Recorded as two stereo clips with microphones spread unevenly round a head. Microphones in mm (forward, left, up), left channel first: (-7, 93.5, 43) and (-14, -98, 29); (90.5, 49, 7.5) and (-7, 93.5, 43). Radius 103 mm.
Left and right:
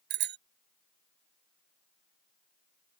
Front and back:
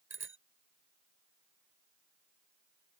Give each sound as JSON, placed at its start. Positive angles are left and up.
{"t": 0.1, "sound": "a bicycle bell", "azimuth_deg": -125}